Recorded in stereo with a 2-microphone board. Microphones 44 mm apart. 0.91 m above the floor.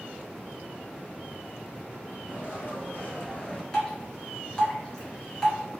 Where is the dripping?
20° left (ahead or behind), 1.6 m.